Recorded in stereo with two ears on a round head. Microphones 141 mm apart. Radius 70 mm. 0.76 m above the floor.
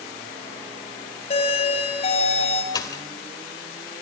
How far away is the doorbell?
About 6.5 m.